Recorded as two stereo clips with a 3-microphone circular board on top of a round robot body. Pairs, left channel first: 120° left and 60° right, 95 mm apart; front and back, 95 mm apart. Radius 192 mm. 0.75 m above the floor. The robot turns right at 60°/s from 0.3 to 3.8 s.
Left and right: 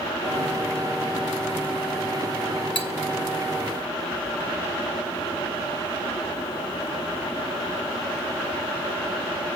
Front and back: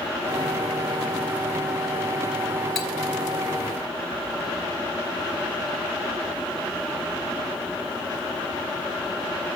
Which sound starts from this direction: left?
Cutlery clinking, at 2.8 s.